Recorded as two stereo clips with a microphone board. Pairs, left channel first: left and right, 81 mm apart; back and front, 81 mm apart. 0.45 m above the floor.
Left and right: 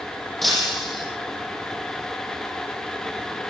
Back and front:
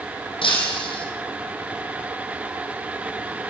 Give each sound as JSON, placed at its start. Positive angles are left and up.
{"t": 0.4, "sound": "breaking glass", "azimuth_deg": 180, "distance_m": 5.5}